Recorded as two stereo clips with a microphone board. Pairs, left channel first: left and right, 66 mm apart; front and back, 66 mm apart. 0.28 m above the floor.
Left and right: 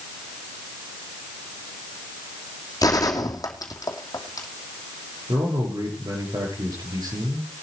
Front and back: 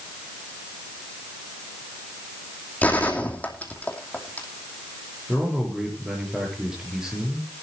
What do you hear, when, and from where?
2.8 s a gunshot: 65° left, 2.5 m
5.3 s a man speaking: 100° right, 7 m